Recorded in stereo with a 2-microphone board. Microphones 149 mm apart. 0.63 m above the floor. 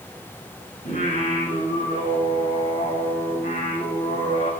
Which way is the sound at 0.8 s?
75° left (ahead or behind).